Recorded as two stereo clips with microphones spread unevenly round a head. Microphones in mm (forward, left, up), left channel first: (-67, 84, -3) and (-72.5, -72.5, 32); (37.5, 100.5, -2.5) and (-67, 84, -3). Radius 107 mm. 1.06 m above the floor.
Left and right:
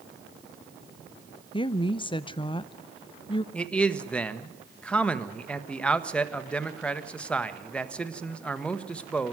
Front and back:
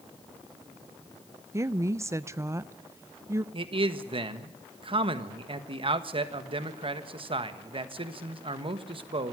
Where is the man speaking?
165° left, 1.5 m.